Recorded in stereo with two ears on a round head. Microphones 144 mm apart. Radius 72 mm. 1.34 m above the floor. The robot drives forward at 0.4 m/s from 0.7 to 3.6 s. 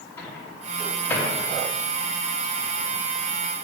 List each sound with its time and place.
0.2 s a microwave: 15° left (ahead or behind), 2 m